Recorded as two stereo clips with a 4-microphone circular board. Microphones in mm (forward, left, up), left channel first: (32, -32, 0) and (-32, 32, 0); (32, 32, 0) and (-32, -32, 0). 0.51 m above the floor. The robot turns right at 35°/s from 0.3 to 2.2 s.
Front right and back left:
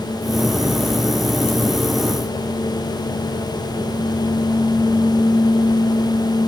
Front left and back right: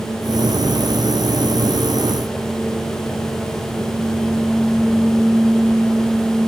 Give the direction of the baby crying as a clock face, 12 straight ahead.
No baby crying in this recording.